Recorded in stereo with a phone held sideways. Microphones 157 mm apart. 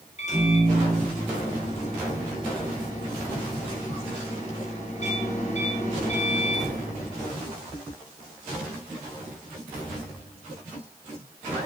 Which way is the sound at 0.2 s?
50° left (ahead or behind).